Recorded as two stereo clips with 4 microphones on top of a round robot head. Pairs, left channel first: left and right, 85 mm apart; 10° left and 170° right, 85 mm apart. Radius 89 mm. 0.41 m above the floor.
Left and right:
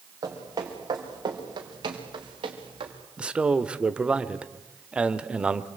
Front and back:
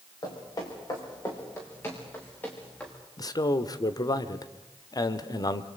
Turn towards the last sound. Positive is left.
turn(degrees=-15)